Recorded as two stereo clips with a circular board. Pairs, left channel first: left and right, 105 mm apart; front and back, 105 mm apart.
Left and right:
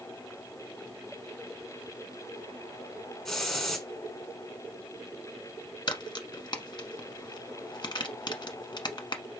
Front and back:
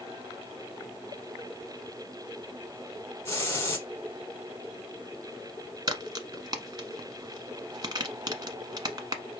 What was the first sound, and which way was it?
A hiss, 10° left.